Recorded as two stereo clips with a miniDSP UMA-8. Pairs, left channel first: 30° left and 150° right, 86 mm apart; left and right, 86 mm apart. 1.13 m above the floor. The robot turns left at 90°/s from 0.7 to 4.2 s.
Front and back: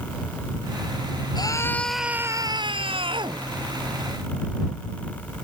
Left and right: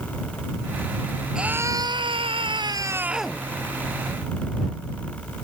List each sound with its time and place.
1.4 s a scream: 5° right; by 3.4 s 170° left